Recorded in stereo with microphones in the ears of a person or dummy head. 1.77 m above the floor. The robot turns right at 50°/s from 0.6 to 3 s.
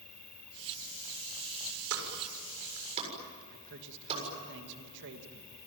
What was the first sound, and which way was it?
An insect, 5° left.